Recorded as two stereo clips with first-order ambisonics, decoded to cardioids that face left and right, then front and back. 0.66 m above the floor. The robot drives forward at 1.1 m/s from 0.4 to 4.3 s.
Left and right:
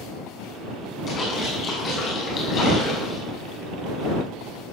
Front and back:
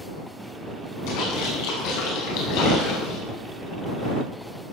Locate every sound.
1.1 s a splash: 25° left, 7 m; by 3.2 s 35° left, 5 m